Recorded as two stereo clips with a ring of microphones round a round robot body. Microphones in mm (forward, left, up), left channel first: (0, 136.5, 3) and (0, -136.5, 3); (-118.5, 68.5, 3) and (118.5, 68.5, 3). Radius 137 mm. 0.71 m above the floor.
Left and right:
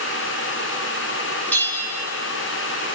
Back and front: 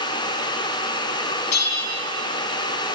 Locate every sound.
1.5 s a bell: 175° left, 3 m